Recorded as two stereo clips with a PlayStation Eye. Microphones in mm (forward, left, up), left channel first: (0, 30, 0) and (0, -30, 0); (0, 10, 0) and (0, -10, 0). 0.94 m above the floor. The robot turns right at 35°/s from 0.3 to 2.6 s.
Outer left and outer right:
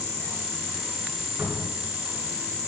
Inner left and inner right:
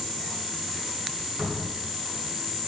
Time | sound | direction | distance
1.4 | a cupboard door | 35° right (ahead or behind) | 8.5 m